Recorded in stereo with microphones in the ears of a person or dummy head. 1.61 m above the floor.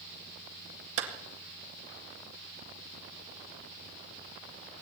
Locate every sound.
1.0 s a clap: 75° right (ahead or behind), 2 m